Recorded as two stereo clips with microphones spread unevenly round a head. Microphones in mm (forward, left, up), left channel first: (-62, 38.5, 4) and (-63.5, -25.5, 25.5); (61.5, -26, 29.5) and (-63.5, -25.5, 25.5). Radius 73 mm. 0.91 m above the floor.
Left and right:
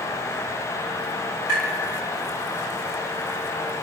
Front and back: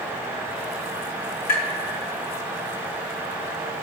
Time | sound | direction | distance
1.5 | tapping | 15° left | 4 m